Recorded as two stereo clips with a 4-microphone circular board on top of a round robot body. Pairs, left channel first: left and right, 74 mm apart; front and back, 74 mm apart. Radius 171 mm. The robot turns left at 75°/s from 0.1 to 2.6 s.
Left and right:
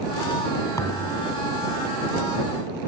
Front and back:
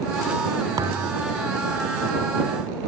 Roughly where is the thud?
Behind left.